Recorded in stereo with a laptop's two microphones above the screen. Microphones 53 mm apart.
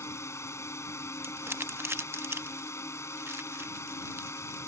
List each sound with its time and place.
0.0 s a drone: 60° left (ahead or behind)
1.2 s crumpling: 50° right (ahead or behind)